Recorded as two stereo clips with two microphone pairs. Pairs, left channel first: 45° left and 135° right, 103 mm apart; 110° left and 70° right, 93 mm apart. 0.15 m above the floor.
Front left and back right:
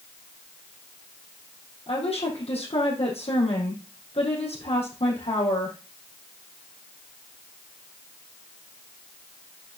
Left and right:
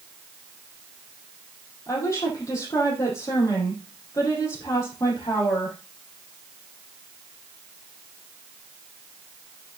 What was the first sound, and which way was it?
A woman speaking, 55° left.